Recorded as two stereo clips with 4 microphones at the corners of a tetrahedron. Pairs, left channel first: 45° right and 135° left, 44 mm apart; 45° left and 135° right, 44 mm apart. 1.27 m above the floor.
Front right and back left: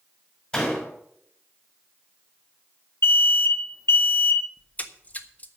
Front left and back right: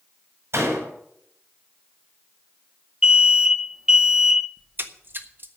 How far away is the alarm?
About 0.7 m.